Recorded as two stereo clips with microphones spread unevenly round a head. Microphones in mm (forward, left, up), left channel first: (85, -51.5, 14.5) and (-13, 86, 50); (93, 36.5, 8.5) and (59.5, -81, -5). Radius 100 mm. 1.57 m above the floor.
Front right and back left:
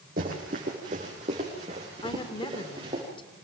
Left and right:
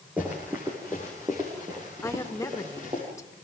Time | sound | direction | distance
0.2 | running footsteps | 170° left | 4.5 m
2.0 | a woman speaking | 10° left | 2.5 m